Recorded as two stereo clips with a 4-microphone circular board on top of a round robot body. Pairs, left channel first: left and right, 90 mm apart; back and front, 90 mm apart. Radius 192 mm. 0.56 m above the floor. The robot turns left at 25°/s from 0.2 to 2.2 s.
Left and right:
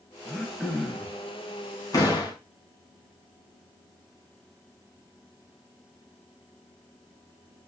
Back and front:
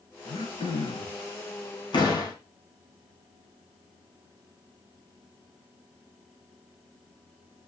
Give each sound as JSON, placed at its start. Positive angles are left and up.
{"t": 0.2, "sound": "throat clearing", "azimuth_deg": 180, "distance_m": 4.5}
{"t": 1.9, "sound": "a door slam", "azimuth_deg": 140, "distance_m": 5.5}